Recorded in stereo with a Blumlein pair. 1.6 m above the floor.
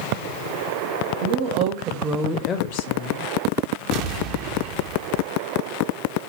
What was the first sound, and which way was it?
A woman speaking, 55° right.